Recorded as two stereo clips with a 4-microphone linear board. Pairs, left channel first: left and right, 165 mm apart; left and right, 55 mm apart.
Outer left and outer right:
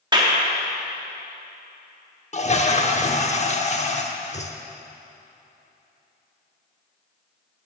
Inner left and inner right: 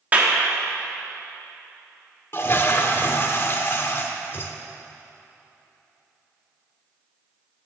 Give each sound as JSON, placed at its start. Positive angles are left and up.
{"t": 0.1, "sound": "a clap", "side_deg": -25, "distance_m": 1.2}
{"t": 2.3, "sound": "a toilet flushing", "side_deg": 45, "distance_m": 0.7}